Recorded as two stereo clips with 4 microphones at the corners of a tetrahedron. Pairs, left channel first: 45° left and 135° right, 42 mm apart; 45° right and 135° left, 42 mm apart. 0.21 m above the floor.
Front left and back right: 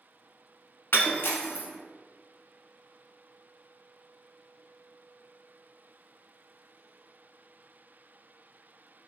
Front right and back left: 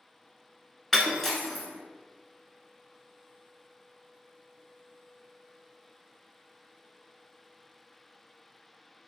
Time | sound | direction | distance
0.9 | breaking glass | 40° left | 0.6 m